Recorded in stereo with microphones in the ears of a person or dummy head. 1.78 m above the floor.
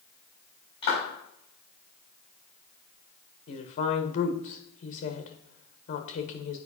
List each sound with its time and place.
0.8 s a clap: 35° left (ahead or behind), 4.5 m
3.5 s a woman speaking: 40° left (ahead or behind), 1.2 m